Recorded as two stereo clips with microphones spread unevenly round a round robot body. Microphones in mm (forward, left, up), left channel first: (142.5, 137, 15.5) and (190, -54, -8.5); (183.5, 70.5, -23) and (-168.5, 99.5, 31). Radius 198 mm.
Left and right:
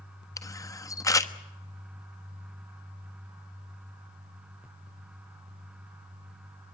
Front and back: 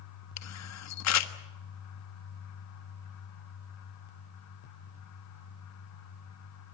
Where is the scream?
I don't hear a scream.